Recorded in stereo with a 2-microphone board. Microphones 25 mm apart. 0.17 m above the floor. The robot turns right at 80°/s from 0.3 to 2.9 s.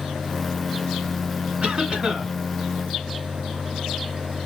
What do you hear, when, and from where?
1.6 s a cough: 80° right, 2.5 m; by 2.3 s 25° right, 2.5 m